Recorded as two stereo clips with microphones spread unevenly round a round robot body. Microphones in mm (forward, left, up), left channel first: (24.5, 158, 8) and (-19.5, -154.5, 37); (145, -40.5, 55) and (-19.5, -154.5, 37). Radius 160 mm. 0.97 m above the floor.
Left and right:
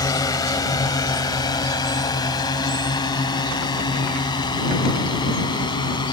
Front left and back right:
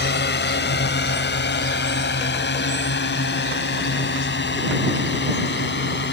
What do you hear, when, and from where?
0.0 s a drone: 5° left